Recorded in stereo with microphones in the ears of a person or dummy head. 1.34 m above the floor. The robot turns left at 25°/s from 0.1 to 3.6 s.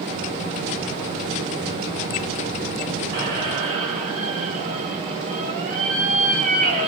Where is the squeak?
55° right (ahead or behind), 1.0 m; by 6.9 s 45° right (ahead or behind), 1.0 m.